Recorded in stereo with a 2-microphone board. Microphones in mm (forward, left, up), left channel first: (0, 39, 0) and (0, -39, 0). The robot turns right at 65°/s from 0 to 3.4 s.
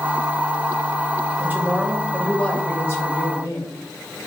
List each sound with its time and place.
1.4 s a woman speaking: 50° right, 1.1 m; by 3.7 s 80° left, 1.1 m